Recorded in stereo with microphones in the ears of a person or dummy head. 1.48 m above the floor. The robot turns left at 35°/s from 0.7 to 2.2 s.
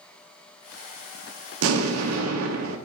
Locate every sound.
1.6 s an explosion: 75° right (ahead or behind), 0.8 m; by 2.8 s 80° right, 0.8 m